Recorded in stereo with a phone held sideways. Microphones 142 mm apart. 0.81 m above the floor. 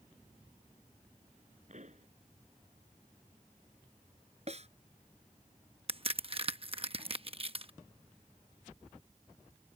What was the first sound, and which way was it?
A pop, 55° right (ahead or behind).